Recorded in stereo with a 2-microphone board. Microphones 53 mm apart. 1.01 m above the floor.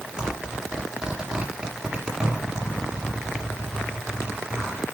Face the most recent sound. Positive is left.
turn(degrees=-15)  # may be behind; listen again after turning